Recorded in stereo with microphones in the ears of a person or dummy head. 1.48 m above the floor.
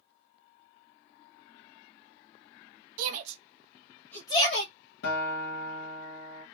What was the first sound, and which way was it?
A shout, 50° right (ahead or behind).